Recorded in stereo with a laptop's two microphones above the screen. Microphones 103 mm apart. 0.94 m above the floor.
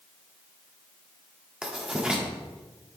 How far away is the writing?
About 1.5 m.